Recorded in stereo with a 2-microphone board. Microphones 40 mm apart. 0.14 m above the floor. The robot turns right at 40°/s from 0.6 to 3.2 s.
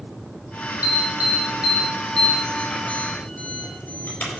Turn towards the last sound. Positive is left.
turn(degrees=45)  # may be behind; listen again after turning